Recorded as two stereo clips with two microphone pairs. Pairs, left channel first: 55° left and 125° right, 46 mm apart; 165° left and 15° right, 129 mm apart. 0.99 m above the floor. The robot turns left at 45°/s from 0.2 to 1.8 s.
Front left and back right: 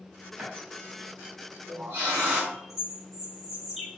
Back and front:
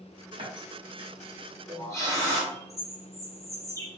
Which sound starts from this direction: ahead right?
A running tap, at 0.4 s.